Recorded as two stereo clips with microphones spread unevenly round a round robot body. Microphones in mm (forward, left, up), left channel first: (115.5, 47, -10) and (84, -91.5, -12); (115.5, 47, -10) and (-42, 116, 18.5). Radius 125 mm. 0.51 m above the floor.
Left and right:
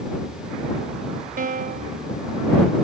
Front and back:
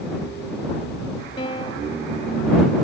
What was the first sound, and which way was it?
A piano, 90° right.